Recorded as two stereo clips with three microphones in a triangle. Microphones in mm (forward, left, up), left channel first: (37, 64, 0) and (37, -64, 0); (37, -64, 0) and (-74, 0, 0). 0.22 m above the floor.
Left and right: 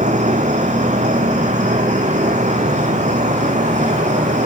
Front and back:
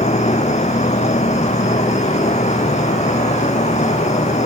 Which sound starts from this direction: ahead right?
An insect, at 0.0 s.